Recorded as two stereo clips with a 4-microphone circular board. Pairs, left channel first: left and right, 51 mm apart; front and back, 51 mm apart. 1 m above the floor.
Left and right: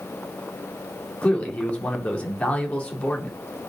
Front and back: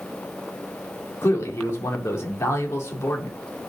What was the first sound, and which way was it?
A man speaking, 30° left.